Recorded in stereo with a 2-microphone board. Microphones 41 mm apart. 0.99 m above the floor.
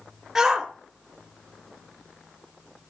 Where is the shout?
10° right (ahead or behind), 2 m.